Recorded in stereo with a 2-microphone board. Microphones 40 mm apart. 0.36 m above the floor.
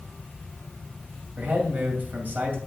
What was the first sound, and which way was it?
A man speaking, 45° right (ahead or behind).